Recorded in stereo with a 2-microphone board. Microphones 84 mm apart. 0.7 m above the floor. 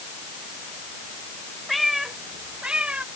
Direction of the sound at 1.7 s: Centre (ahead or behind).